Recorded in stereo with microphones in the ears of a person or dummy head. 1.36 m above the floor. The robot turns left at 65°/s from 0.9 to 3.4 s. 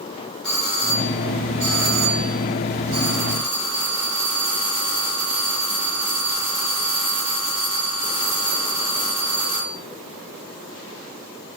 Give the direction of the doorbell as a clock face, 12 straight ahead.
12 o'clock.